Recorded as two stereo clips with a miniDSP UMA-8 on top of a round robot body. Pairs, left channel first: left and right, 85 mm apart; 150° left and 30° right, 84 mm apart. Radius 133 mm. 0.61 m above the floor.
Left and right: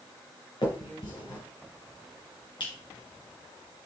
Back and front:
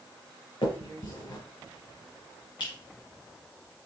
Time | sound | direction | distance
0.6 | a finger snap | 125° left | 3.5 m